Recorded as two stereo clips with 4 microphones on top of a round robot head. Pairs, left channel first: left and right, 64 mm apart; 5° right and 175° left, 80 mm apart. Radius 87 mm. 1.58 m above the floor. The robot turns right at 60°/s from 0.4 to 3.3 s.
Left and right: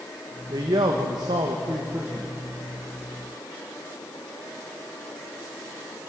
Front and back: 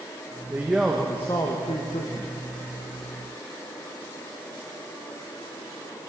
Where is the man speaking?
115° right, 1.4 m; by 2.3 s 10° right, 1.4 m.